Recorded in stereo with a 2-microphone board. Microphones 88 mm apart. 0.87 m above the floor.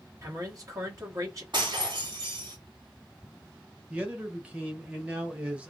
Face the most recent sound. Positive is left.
turn(degrees=-15)  # may be behind; listen again after turning